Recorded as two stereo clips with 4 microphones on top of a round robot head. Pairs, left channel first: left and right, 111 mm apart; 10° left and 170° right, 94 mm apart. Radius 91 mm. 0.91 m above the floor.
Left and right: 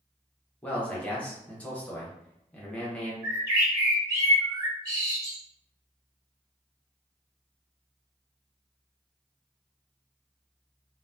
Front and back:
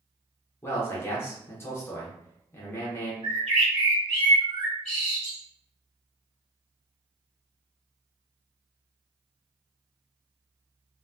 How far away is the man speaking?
About 0.8 m.